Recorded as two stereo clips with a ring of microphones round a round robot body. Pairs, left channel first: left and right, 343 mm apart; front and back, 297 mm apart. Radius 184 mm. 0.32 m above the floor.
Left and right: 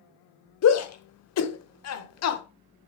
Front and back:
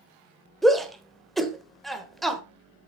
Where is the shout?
90° left, 1.1 m.